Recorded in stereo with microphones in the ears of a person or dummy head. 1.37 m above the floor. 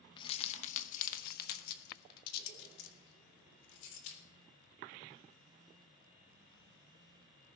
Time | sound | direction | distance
0.2 | keys jangling | 30° left (ahead or behind) | 0.8 m